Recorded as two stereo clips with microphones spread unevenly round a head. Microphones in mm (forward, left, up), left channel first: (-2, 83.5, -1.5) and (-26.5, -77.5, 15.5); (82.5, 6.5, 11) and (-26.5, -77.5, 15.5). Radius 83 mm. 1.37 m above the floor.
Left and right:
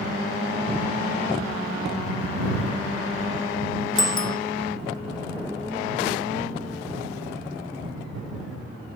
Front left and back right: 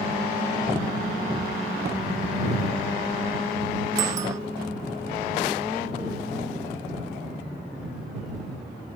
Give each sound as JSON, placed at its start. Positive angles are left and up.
{"t": 4.0, "sound": "a bicycle bell", "azimuth_deg": 145}